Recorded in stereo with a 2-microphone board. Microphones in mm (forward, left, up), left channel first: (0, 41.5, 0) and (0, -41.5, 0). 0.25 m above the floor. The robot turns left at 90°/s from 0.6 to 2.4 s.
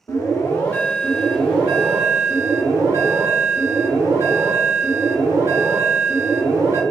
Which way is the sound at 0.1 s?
50° left.